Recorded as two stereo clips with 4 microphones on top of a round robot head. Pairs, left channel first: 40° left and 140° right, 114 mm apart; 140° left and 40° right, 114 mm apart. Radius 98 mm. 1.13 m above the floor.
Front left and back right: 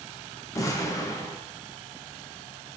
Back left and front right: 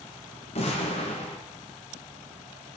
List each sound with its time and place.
0.6 s an explosion: 105° left, 1.2 m